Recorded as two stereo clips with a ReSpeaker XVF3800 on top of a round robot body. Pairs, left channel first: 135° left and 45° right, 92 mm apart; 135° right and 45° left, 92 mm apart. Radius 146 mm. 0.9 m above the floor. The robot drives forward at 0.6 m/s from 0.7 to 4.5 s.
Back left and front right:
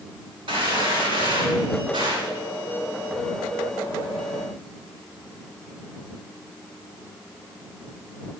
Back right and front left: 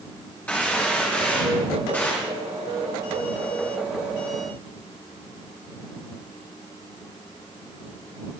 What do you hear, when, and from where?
0.5 s a gunshot: 60° right, 9.5 m; by 2.3 s 70° right, 9 m